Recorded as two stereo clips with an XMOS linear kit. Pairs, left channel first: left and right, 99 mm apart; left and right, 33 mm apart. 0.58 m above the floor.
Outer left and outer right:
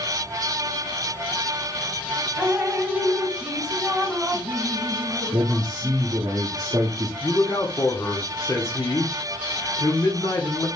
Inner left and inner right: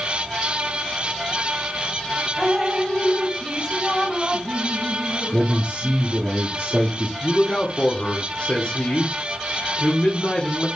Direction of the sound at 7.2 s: 35° left (ahead or behind).